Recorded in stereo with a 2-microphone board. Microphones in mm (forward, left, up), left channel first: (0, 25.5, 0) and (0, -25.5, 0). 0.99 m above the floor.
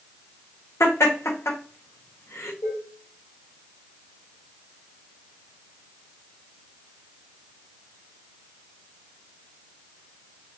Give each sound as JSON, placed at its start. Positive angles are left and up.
{"t": 0.8, "sound": "laughter", "side_deg": 80, "distance_m": 1.0}
{"t": 2.6, "sound": "dishes clattering", "side_deg": 60, "distance_m": 2.0}